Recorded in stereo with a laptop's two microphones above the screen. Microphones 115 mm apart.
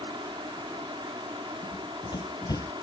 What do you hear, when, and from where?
0.0 s a fan: 45° right (ahead or behind)
1.6 s running footsteps: 40° left (ahead or behind); by 2.7 s 30° left (ahead or behind)